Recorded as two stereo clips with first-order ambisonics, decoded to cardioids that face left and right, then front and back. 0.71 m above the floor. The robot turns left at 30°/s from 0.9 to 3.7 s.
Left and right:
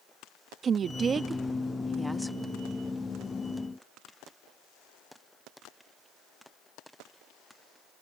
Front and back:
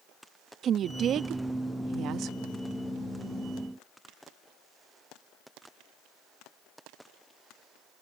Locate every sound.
0.6 s a woman speaking: 140° right; by 2.4 s 175° left